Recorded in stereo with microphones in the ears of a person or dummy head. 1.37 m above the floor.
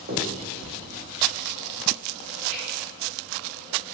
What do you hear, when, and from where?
0.1 s a finger snap: 45° right (ahead or behind), 1.0 m